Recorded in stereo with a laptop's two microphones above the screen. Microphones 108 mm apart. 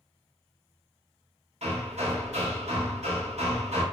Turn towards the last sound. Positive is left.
turn(degrees=-90)